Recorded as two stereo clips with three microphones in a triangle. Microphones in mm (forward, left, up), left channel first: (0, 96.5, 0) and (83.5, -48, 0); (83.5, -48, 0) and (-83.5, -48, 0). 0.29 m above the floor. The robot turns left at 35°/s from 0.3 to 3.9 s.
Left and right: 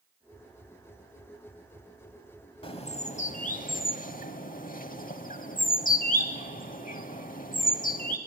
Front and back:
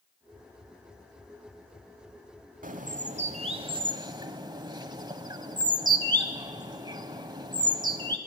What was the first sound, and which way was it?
A bird, 165° left.